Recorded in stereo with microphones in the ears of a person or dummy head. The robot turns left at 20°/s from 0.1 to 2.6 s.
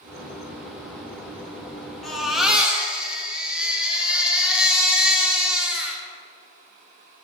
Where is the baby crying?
5° left (ahead or behind), 2.5 m; by 6.0 s 5° right (ahead or behind), 2.5 m.